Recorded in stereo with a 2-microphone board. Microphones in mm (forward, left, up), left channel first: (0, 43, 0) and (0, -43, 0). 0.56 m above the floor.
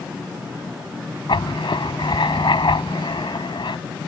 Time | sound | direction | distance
1.3 | writing | 70° left (ahead or behind) | ?